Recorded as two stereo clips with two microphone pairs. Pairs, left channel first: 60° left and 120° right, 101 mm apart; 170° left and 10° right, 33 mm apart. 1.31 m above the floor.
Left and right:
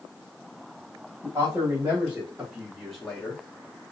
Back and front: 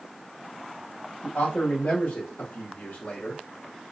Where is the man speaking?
170° right, 1.4 m; by 3.4 s 125° left, 0.8 m.